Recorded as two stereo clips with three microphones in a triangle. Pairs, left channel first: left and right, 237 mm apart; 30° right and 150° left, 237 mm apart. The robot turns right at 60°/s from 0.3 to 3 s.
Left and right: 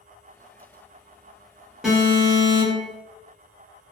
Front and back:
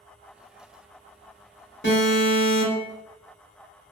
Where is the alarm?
5° right, 1.5 m; by 2.9 s 60° left, 1.5 m.